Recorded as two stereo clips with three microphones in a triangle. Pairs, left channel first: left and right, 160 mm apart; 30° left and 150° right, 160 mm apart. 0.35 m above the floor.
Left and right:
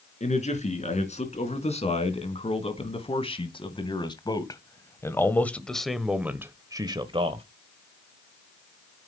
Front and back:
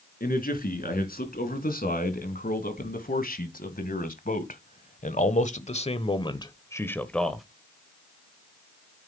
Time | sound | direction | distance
0.2 | a man speaking | 50° left | 3.5 m